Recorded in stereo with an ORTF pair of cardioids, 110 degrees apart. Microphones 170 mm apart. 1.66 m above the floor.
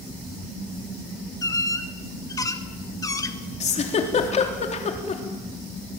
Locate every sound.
1.4 s a squeak: 20° left, 2 m
3.6 s a giggle: 40° left, 3.5 m